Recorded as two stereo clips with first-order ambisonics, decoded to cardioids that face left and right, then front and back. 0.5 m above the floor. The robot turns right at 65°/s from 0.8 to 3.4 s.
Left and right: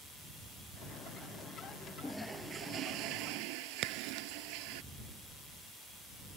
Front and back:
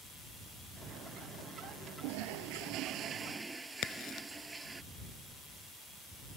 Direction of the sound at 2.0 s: 170° left.